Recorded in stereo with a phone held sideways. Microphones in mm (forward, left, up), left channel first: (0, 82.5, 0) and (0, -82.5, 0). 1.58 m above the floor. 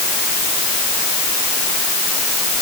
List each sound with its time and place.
Only background noise.